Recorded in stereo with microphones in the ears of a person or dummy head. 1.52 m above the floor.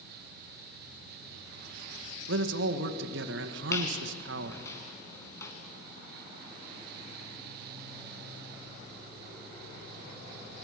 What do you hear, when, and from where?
2.3 s a man speaking: 75° right (ahead or behind), 1.8 m
3.7 s a squeak: 20° left (ahead or behind), 4.5 m